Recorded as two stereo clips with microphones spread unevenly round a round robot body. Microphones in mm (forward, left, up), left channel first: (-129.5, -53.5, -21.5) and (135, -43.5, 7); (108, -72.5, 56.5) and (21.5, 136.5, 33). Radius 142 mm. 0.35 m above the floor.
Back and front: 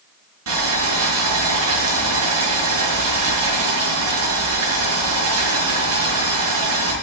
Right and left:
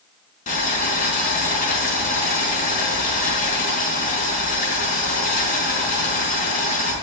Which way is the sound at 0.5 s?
15° right.